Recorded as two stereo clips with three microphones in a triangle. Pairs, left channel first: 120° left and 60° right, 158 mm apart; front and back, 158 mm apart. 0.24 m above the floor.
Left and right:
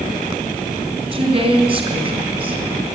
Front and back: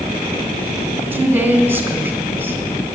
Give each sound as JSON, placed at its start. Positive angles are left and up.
{"t": 1.1, "sound": "a woman speaking", "azimuth_deg": -105, "distance_m": 2.5}